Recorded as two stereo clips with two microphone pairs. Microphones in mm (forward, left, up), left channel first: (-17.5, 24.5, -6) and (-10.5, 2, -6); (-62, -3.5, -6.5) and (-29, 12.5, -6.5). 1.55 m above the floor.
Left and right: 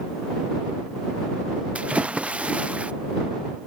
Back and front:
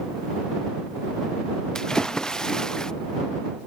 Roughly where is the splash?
Right.